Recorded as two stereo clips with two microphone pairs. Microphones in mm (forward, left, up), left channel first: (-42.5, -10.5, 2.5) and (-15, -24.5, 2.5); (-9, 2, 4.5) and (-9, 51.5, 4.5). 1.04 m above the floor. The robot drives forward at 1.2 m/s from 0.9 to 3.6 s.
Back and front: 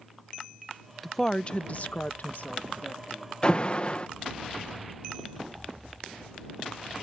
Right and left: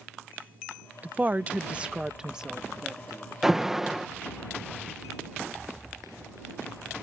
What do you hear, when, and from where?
1.0 s a woman speaking: 70° left; by 3.3 s 170° left
3.4 s an alarm: 165° left; by 4.1 s 170° left